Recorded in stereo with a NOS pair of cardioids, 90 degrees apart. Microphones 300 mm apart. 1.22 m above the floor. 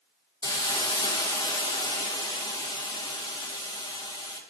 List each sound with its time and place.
0.4 s a hiss: 15° left, 1.2 m